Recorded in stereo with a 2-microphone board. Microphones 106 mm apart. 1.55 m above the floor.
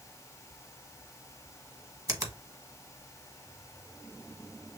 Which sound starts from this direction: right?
A finger snap, at 2.1 s.